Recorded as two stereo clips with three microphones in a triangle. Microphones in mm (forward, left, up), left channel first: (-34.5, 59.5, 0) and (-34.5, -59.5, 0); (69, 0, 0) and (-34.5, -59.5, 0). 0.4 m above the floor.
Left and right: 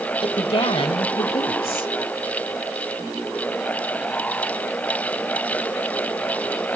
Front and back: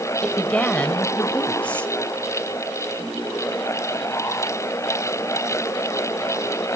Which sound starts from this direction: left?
A woman speaking, at 0.2 s.